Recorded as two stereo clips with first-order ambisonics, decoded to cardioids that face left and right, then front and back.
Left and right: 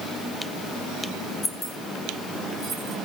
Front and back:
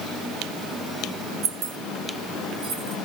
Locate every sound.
1.4 s keys jangling: 170° left, 1.0 m; by 3.0 s 150° right, 1.6 m